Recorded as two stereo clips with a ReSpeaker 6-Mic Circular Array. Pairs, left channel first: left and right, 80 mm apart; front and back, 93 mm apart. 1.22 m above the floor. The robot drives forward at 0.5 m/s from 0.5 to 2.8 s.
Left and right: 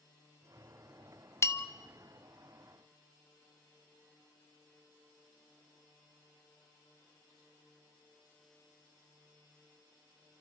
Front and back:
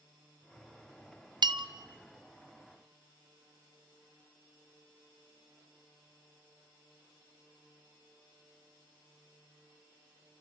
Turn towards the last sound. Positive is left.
turn(degrees=160)